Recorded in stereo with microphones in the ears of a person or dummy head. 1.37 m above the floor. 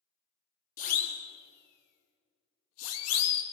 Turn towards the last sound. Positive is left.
turn(degrees=80)